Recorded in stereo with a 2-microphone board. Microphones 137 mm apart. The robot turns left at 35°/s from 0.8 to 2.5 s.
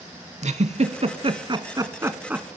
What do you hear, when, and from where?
0.4 s a giggle: 55° right (ahead or behind), 0.6 m; by 2.5 s 10° right (ahead or behind), 0.6 m